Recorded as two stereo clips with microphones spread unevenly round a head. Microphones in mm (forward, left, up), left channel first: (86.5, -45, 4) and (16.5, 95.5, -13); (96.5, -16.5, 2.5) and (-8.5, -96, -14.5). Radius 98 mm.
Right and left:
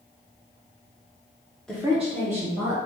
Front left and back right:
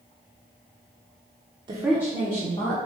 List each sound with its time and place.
1.7 s a woman speaking: 155° right, 0.6 m; by 2.8 s 80° left, 1.6 m